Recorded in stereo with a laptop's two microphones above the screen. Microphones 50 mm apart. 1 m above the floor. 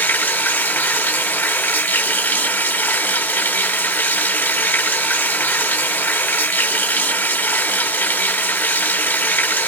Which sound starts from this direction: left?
Running water, at 0.0 s.